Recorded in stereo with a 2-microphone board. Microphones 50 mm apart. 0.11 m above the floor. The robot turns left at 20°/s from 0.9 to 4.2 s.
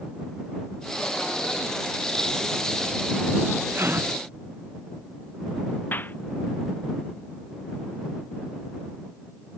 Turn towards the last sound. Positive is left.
turn(degrees=40)  # may be behind; listen again after turning